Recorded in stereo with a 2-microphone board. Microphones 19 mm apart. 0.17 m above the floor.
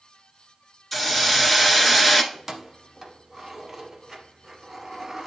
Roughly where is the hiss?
Centre.